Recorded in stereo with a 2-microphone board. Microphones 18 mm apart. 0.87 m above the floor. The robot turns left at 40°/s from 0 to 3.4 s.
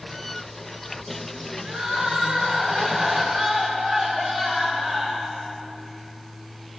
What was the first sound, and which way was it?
Crying, 110° right.